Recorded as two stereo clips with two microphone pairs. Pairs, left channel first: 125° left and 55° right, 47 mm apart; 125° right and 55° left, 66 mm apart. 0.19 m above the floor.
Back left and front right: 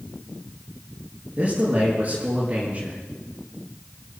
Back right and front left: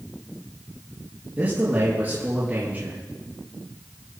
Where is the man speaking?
5° right, 4.5 m.